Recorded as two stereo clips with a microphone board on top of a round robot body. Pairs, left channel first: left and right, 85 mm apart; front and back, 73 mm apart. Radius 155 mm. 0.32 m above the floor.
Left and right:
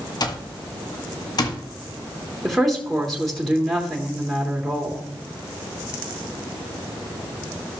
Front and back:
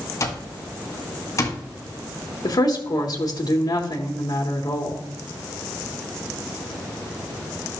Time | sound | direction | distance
0.2 | an alarm clock | 50° left | 1.8 m
2.4 | a woman speaking | straight ahead | 1.9 m